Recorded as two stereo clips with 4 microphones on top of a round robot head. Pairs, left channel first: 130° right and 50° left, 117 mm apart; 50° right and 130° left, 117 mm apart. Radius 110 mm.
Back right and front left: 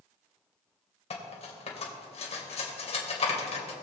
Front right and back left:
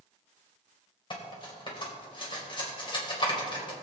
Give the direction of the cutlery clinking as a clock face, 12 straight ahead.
3 o'clock.